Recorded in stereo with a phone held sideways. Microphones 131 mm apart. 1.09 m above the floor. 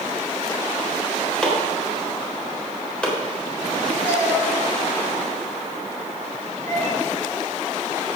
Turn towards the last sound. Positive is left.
turn(degrees=15)  # may be behind; listen again after turning